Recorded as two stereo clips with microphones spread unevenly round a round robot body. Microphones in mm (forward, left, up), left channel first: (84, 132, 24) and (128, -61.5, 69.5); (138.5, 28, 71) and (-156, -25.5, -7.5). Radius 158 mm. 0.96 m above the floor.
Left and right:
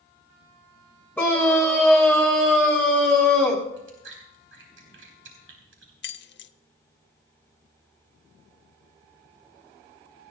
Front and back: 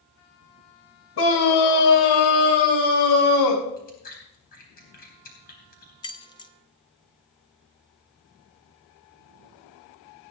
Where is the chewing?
55° right, 4 m.